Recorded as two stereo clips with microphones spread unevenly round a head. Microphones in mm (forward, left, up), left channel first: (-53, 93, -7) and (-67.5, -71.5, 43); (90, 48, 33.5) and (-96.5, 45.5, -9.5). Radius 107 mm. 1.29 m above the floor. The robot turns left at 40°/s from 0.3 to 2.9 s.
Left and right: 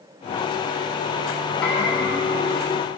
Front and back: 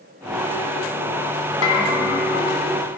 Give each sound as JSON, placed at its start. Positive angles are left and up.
{"t": 1.6, "sound": "a bell", "azimuth_deg": 0, "distance_m": 1.7}